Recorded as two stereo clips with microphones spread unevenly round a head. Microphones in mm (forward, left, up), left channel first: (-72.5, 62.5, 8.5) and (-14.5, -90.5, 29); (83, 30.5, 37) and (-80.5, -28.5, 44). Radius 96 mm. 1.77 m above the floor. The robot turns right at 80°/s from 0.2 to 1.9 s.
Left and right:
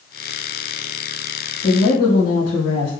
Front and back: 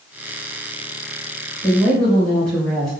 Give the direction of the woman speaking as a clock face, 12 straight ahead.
9 o'clock.